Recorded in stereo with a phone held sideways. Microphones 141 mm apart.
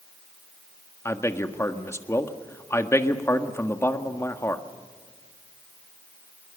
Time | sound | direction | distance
1.1 | a man speaking | 20° left (ahead or behind) | 1.6 m